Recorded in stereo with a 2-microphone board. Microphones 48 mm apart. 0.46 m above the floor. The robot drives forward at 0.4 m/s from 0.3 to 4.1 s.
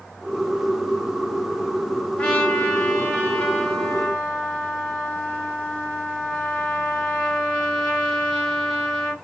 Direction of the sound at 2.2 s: 25° left (ahead or behind).